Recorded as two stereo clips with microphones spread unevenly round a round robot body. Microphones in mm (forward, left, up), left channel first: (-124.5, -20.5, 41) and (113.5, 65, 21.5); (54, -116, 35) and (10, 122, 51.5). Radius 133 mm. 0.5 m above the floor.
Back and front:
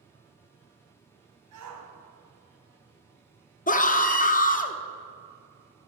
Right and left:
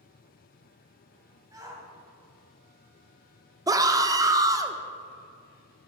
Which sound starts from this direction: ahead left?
A shout, at 1.5 s.